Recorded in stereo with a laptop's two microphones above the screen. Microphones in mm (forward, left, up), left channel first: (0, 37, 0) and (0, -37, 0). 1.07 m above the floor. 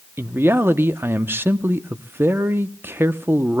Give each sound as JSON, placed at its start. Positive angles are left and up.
{"t": 0.2, "sound": "a man speaking", "side_deg": -30, "distance_m": 0.7}